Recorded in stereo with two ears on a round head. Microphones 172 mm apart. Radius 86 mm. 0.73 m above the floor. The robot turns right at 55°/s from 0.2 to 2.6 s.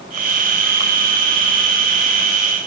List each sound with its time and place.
Only background noise.